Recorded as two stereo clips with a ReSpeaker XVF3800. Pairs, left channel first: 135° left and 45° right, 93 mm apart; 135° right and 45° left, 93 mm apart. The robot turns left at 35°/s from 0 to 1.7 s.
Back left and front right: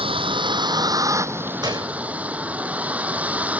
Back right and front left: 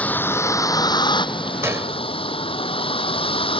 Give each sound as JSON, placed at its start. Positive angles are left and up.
{"t": 0.0, "sound": "a vehicle", "azimuth_deg": -60}
{"t": 1.6, "sound": "a gunshot", "azimuth_deg": -10}